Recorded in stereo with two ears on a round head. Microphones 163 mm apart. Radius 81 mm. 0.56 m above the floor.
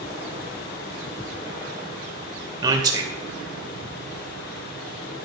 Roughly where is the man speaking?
Right.